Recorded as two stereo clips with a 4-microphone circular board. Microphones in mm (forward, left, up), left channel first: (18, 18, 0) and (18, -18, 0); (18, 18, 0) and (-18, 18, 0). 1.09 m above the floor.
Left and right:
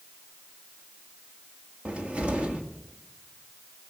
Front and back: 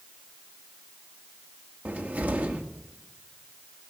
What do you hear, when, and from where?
1.9 s a cupboard door: 150° right, 1.7 m